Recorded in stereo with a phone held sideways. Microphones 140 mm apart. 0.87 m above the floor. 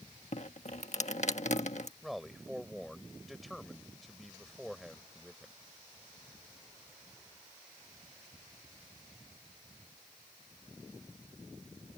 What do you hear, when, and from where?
0.3 s dripping: 55° left (ahead or behind)
2.0 s a man speaking: centre (ahead or behind)